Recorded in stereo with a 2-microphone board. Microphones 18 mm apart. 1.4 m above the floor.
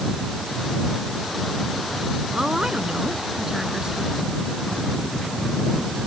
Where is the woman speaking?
35° right (ahead or behind); by 4.2 s 30° right (ahead or behind).